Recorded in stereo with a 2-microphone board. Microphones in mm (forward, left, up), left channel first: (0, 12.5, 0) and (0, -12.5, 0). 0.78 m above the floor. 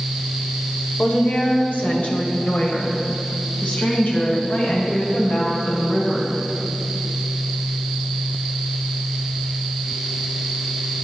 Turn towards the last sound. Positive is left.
turn(degrees=70)  # may be behind; listen again after turning